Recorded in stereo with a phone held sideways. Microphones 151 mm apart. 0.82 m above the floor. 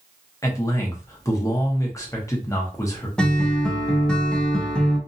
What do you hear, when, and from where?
0.4 s a man speaking: 20° left (ahead or behind), 0.9 m
3.2 s a guitar: 5° left (ahead or behind), 0.7 m